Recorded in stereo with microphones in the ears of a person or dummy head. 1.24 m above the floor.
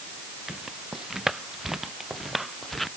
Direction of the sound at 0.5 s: 5° right (ahead or behind).